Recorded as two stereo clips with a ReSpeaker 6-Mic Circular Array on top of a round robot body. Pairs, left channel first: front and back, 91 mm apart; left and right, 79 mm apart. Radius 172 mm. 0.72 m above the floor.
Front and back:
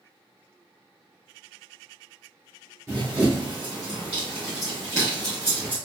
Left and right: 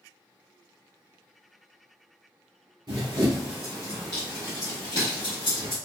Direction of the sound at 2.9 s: 120° right.